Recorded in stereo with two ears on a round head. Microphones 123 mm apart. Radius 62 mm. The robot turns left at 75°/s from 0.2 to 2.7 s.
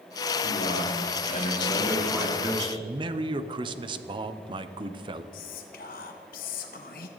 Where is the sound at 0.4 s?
120° left, 3.5 m; by 2.7 s 50° right, 3.5 m.